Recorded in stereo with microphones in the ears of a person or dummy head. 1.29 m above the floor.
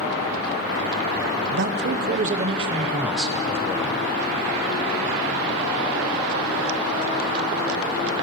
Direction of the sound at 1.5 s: 55° right (ahead or behind).